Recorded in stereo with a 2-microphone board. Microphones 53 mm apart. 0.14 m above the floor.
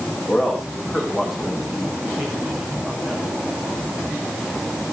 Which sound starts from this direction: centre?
A man speaking, at 0.3 s.